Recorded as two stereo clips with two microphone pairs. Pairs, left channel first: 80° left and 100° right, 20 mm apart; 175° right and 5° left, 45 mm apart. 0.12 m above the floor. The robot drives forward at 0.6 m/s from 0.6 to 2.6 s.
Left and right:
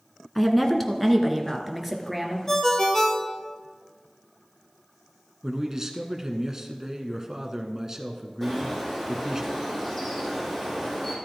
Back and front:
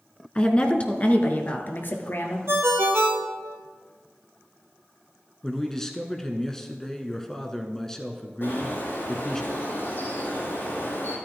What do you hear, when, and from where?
0.3 s a woman speaking: 165° left, 1.2 m; by 2.4 s 175° left, 1.9 m
2.5 s a ringtone: 10° left, 1.3 m
5.4 s a man speaking: 110° right, 1.1 m
8.4 s a bird: 155° left, 5 m